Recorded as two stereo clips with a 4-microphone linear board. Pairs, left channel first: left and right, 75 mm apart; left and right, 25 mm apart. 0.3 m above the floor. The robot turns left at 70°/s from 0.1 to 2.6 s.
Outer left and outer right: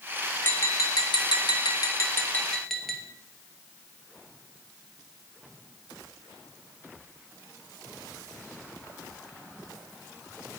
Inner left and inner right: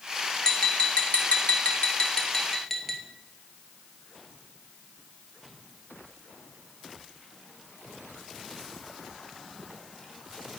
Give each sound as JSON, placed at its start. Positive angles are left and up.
{"t": 0.4, "sound": "tapping", "azimuth_deg": 155, "distance_m": 2.0}